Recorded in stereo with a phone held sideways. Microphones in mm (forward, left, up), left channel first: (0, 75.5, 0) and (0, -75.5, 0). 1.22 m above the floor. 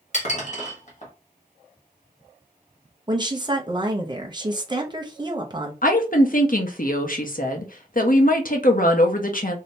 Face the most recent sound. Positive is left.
turn(degrees=60)  # may be behind; listen again after turning